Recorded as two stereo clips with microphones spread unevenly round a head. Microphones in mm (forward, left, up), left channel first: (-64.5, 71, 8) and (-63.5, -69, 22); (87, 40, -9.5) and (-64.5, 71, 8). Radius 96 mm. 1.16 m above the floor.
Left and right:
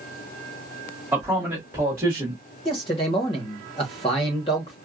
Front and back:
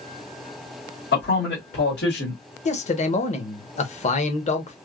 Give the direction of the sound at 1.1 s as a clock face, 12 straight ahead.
12 o'clock.